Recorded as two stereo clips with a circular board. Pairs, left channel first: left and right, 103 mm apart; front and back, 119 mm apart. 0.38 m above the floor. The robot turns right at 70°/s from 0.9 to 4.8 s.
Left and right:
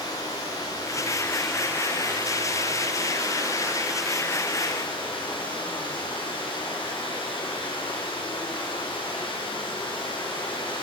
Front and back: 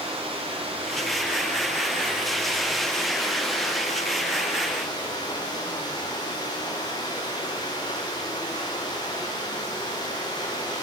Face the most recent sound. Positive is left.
turn(degrees=55)